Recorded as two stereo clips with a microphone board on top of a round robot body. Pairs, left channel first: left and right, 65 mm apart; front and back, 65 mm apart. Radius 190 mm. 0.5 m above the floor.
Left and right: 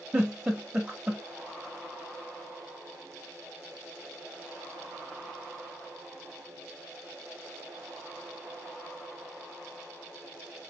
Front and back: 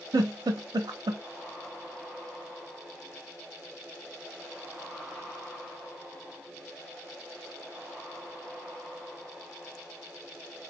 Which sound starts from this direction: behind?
A giggle, at 0.1 s.